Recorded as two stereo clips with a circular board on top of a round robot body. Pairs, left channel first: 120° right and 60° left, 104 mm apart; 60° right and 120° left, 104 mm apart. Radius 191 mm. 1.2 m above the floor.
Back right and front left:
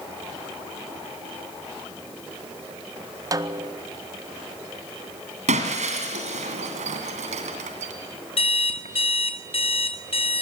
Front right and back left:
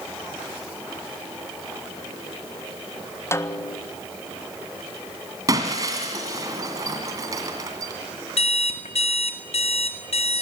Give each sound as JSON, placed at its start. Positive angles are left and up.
{"t": 3.3, "sound": "a snare drum", "azimuth_deg": 5, "distance_m": 1.6}
{"t": 5.5, "sound": "breaking glass", "azimuth_deg": 60, "distance_m": 2.0}
{"t": 8.4, "sound": "an alarm clock", "azimuth_deg": -85, "distance_m": 2.0}